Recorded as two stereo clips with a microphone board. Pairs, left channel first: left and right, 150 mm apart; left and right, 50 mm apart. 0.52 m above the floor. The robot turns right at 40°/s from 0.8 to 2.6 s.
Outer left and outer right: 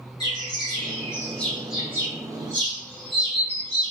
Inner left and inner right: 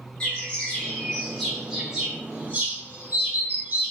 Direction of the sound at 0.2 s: 30° left (ahead or behind).